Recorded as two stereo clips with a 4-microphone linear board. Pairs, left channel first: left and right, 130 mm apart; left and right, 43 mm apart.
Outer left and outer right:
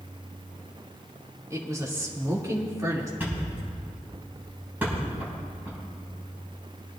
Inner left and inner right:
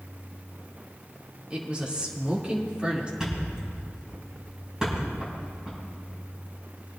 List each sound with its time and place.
1.5 s a woman speaking: 25° right (ahead or behind), 2.5 m
3.2 s a thud: 15° right (ahead or behind), 5.5 m